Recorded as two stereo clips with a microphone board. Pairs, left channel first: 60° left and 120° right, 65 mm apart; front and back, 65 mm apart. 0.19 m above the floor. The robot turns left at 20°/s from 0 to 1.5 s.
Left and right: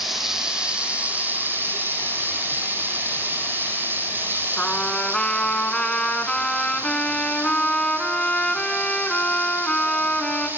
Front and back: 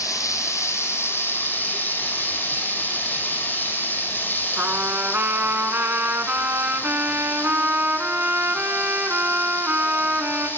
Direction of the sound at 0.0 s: 30° right.